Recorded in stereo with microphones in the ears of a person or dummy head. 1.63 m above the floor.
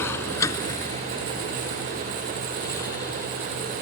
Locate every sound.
0.0 s a vehicle: 15° left (ahead or behind); by 3.8 s 20° left (ahead or behind)